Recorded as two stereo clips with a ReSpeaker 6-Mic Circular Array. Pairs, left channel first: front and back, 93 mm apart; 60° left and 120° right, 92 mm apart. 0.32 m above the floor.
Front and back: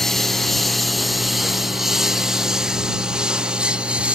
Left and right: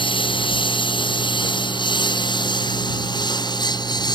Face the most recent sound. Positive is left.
turn(degrees=100)